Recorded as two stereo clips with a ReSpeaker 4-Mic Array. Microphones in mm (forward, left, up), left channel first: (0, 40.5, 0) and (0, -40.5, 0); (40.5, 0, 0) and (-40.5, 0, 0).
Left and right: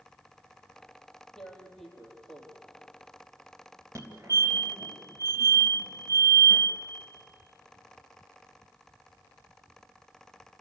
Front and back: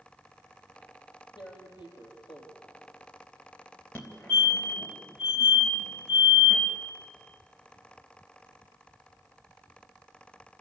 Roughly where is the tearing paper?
Ahead.